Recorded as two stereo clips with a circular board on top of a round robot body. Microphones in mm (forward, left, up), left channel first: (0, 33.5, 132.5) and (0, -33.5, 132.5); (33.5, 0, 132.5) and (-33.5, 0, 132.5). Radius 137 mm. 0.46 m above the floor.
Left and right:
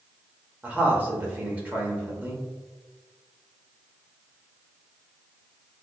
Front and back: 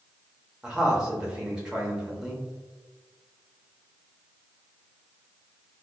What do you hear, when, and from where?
0.6 s a man speaking: 120° right, 1.4 m